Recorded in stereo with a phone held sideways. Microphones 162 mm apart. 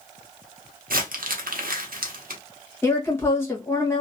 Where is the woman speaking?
15° left (ahead or behind), 1.2 m.